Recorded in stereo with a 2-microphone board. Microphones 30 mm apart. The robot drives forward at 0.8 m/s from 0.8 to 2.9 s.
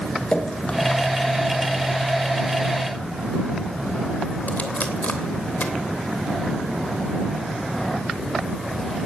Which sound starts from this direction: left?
Dripping, at 0.3 s.